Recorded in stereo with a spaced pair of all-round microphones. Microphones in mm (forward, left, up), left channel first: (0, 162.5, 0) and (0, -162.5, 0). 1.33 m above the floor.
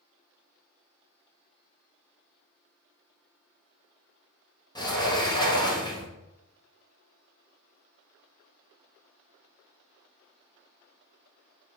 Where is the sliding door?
15° left (ahead or behind), 0.6 m.